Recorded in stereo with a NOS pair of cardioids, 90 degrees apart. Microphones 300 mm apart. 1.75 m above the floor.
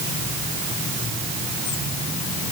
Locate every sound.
Only background noise.